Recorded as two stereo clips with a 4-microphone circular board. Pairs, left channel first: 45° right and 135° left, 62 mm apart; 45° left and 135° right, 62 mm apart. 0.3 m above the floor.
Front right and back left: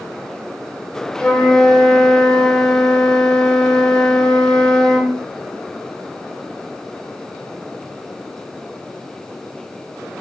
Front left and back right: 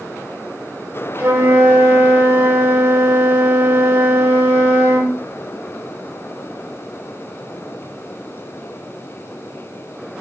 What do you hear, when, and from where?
1.2 s a flute: 120° right, 0.7 m